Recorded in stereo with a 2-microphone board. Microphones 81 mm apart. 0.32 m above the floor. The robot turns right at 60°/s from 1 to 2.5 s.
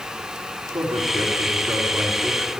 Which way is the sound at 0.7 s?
65° right (ahead or behind).